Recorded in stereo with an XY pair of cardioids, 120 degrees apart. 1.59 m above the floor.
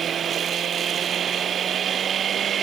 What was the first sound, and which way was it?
Only background noise.